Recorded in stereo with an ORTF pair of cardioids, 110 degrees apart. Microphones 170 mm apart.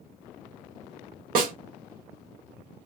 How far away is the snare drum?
About 0.8 m.